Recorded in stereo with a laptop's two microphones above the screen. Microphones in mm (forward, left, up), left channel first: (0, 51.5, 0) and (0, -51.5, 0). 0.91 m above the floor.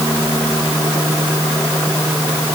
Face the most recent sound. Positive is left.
No sound to turn to.